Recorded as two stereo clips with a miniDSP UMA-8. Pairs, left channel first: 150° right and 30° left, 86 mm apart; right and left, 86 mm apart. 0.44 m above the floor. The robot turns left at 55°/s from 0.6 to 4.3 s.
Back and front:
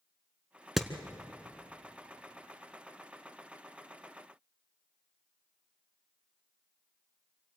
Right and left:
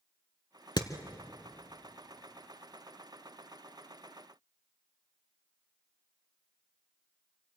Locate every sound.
0.8 s hammering: 60° right, 1.0 m; by 0.9 s 65° right, 1.0 m